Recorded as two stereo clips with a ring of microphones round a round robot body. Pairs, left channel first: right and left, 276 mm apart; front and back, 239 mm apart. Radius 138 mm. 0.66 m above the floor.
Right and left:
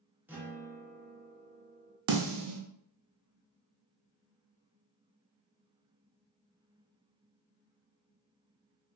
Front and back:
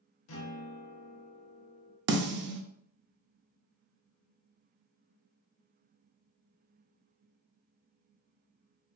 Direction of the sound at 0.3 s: 5° left.